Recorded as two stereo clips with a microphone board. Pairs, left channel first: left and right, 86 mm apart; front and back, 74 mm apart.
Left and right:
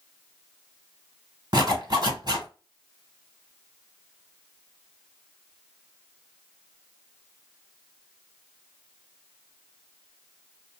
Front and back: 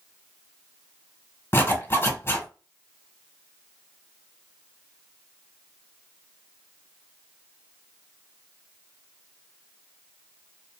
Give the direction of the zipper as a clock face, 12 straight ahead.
2 o'clock.